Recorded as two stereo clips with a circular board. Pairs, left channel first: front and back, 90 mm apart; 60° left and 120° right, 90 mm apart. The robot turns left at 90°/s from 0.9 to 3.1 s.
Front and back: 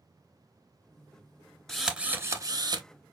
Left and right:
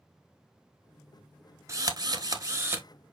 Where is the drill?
80° right, 1.0 m; by 2.9 s 170° left, 1.0 m.